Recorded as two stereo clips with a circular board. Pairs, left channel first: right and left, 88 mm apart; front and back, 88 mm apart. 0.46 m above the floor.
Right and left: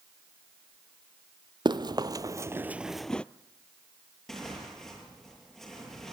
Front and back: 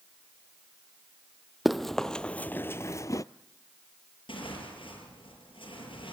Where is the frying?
I don't hear frying.